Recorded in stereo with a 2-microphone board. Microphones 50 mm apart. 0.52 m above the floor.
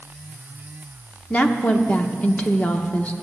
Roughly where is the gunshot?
I don't hear a gunshot.